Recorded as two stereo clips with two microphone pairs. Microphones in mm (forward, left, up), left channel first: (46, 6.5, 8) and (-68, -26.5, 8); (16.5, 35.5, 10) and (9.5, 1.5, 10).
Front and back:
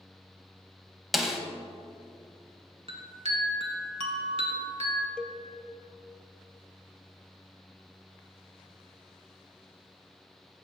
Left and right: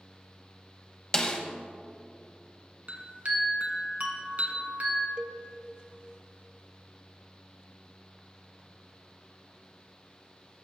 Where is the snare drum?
110° left, 0.9 m.